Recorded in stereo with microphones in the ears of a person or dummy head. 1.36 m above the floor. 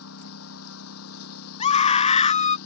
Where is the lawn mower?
85° left.